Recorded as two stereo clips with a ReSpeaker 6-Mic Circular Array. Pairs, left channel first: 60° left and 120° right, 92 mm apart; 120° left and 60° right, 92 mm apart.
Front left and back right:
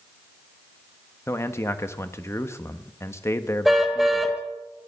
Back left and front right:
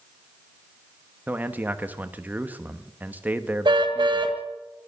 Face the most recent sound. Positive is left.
turn(degrees=-30)